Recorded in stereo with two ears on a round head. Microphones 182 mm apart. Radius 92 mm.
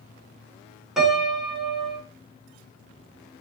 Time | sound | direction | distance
1.0 | a piano | 5° right (ahead or behind) | 4 m